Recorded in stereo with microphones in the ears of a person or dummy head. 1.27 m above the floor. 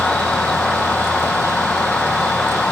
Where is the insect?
5° left (ahead or behind).